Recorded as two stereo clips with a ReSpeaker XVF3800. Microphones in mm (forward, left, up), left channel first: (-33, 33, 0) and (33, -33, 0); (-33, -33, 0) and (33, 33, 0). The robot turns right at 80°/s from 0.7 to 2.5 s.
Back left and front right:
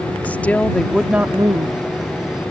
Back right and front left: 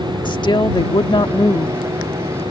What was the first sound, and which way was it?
A woman speaking, 155° right.